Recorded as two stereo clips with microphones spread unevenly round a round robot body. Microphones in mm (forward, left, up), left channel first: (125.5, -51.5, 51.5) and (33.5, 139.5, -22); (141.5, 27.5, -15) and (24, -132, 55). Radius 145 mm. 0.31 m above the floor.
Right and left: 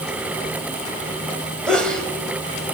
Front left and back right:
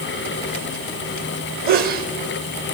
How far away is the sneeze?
About 1.7 m.